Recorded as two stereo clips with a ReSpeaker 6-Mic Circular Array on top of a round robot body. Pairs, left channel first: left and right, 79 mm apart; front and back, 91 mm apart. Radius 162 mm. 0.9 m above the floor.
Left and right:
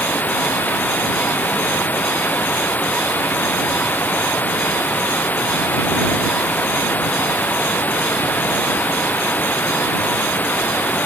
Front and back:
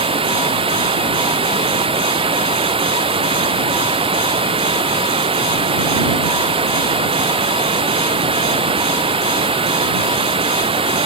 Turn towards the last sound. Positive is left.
turn(degrees=160)